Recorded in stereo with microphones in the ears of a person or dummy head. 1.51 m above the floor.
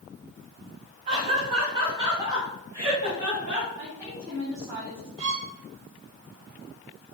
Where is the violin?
35° right (ahead or behind), 1.4 m.